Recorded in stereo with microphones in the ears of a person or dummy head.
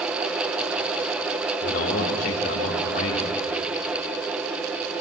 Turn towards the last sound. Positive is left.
turn(degrees=55)  # may be behind; listen again after turning